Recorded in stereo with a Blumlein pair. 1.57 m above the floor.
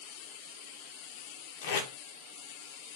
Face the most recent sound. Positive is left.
turn(degrees=50)